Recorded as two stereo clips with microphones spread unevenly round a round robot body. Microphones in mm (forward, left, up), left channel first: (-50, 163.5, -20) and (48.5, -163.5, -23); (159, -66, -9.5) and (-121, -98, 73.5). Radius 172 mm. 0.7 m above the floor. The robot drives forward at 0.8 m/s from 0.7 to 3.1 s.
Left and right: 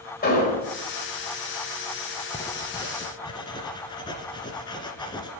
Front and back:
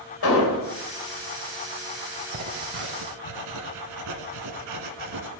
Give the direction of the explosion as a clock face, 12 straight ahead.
11 o'clock.